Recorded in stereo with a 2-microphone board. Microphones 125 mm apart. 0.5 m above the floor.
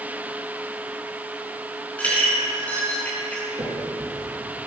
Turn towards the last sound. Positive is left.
turn(degrees=-40)  # may be behind; listen again after turning